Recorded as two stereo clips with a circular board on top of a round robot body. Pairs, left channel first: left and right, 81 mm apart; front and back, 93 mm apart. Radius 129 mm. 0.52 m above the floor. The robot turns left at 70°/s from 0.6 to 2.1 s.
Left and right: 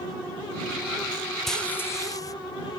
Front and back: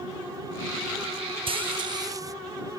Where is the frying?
175° left; by 2.3 s 130° left.